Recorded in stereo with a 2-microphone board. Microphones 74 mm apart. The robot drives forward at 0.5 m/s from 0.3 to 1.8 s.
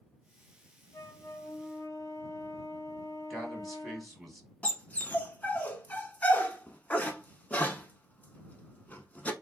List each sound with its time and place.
0.9 s a flute: 50° left (ahead or behind), 0.7 m; by 4.2 s 35° left (ahead or behind), 0.8 m
3.3 s a man speaking: centre (ahead or behind), 1.3 m
4.6 s a dog barking: 20° left (ahead or behind), 0.5 m